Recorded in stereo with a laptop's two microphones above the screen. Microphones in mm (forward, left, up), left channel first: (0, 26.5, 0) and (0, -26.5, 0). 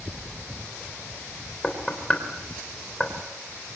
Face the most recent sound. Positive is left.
turn(degrees=15)  # may be behind; listen again after turning